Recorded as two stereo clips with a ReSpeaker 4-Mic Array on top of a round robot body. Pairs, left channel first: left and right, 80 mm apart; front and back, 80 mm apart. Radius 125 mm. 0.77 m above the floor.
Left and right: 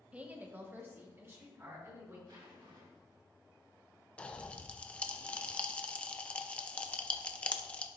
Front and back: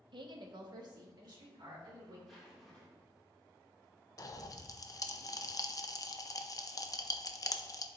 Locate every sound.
0.1 s a woman speaking: 165° right, 1.0 m; by 2.2 s 145° right, 3.5 m
2.3 s a zipper: 90° right, 2.5 m
4.2 s a pop: 20° left, 0.7 m